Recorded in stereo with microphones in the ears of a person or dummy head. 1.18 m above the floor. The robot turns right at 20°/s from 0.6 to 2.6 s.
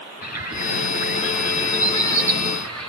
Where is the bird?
130° left, 8.5 m; by 2.9 s 170° left, 8.5 m.